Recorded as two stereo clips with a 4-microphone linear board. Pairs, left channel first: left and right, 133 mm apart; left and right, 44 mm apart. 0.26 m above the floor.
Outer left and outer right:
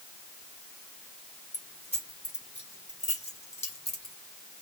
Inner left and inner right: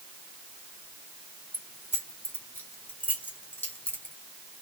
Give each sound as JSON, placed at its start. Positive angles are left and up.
{"t": 1.5, "sound": "keys jangling", "side_deg": 60, "distance_m": 2.0}